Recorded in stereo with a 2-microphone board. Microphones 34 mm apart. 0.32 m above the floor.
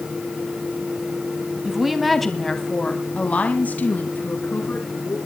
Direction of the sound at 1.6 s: 10° right (ahead or behind).